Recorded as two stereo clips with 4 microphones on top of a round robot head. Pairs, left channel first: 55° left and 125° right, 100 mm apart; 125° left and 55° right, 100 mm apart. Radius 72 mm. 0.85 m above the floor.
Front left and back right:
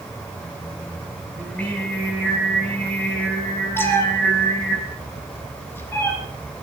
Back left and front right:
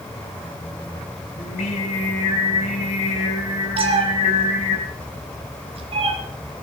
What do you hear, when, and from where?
1.4 s singing: 130° left, 5.5 m
3.8 s a cat meowing: 15° right, 2.5 m